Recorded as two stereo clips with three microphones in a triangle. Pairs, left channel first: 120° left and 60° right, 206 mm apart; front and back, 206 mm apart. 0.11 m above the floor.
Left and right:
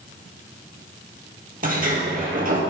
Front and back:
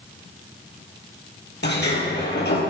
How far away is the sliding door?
About 3 m.